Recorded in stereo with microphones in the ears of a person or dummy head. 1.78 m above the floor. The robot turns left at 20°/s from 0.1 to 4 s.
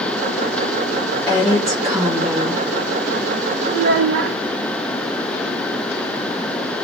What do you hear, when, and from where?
1.3 s a woman speaking: 10° left (ahead or behind), 1.2 m; by 2.6 s 15° right (ahead or behind), 1.2 m
3.7 s a child speaking: 60° right (ahead or behind), 1.1 m